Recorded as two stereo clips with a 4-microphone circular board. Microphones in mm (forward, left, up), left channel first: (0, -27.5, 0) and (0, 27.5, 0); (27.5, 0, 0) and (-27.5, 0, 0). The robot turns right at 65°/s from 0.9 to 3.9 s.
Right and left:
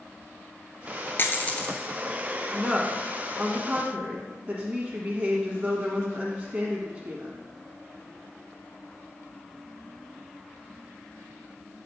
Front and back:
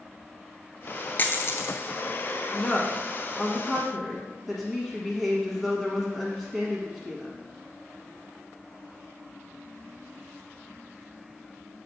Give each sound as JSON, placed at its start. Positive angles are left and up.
{"t": 1.2, "sound": "a dropped coin", "azimuth_deg": -50, "distance_m": 0.7}
{"t": 2.5, "sound": "a woman speaking", "azimuth_deg": -5, "distance_m": 1.2}